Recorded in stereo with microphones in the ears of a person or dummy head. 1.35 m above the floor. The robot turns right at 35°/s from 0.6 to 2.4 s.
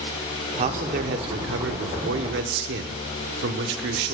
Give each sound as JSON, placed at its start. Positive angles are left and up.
{"t": 0.6, "sound": "a man speaking", "azimuth_deg": -140, "distance_m": 0.9}